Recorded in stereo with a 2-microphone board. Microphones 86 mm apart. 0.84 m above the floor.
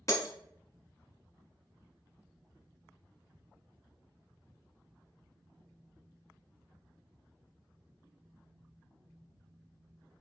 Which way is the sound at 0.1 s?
35° left (ahead or behind).